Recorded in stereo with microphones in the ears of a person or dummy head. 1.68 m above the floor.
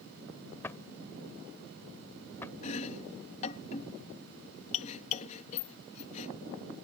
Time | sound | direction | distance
0.6 | a drawer | 10° left (ahead or behind) | ?
2.6 | chopping | 40° left (ahead or behind) | ?